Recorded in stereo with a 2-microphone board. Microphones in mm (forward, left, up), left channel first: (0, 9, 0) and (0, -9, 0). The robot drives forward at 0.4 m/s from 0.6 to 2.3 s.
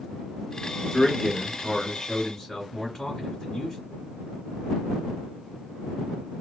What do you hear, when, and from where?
0.9 s a man speaking: 30° left (ahead or behind), 1.5 m